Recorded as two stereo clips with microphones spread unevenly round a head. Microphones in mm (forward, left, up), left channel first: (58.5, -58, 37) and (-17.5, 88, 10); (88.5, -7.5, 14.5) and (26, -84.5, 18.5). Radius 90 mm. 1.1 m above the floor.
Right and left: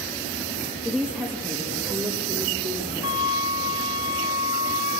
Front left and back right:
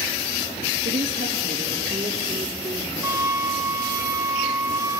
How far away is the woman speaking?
About 2.5 m.